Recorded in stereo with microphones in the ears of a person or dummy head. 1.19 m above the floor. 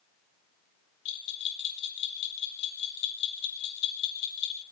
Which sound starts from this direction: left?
A bell, at 1.1 s.